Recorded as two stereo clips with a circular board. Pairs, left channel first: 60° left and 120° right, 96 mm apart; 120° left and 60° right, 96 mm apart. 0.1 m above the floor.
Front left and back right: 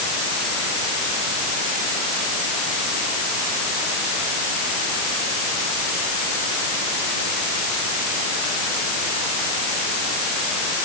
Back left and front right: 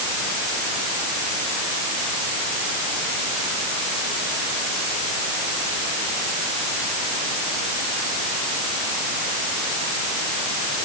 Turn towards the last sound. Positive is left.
No sound to turn to.